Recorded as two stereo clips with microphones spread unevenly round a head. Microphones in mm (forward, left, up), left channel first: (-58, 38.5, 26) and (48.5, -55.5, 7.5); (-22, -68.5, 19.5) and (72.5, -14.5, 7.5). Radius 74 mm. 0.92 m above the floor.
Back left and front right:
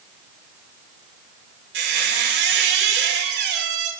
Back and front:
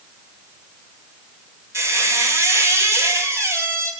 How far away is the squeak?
About 2.5 m.